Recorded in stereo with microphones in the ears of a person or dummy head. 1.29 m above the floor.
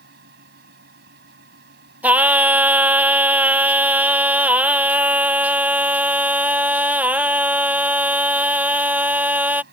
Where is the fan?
65° right (ahead or behind).